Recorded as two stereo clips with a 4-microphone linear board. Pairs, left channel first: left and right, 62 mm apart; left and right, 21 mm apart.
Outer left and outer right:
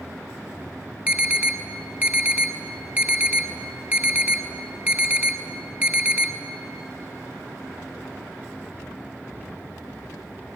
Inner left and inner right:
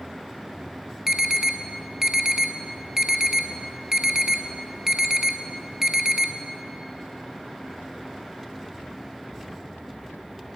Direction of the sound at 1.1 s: 30° right (ahead or behind).